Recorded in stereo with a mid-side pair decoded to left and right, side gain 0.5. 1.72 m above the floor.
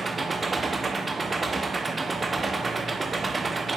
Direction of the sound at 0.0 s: 25° right.